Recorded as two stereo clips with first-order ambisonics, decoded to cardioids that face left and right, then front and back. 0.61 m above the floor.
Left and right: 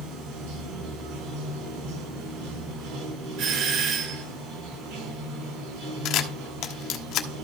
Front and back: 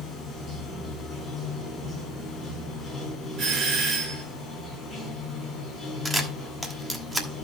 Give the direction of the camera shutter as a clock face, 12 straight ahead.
9 o'clock.